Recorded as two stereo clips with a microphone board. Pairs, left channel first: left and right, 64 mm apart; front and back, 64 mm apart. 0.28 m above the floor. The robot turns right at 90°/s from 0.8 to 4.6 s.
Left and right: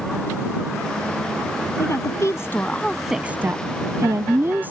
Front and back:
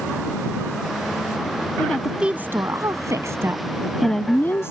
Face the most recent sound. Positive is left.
turn(degrees=-35)